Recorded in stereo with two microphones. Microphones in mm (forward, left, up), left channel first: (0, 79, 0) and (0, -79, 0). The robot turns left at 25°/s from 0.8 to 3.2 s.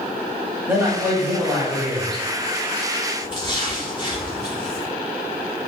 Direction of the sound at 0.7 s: 10° right (ahead or behind).